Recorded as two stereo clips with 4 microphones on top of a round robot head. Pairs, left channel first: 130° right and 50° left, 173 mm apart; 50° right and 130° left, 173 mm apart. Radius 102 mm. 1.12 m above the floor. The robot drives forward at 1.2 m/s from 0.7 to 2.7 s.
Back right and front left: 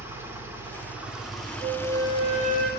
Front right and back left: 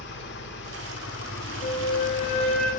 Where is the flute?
Straight ahead, 6.5 m.